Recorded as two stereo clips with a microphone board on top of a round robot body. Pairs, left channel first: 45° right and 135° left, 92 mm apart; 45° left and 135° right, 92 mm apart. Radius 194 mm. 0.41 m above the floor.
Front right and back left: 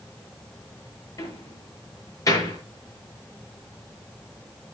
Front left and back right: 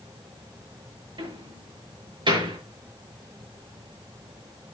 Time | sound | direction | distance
1.2 | a door slam | 100° right | 8 m